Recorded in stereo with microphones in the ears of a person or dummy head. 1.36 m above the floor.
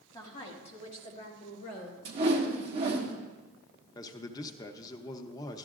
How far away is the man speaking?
About 0.8 m.